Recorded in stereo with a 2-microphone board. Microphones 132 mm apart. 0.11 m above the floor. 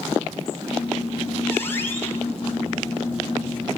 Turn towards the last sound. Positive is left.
turn(degrees=15)  # may be behind; listen again after turning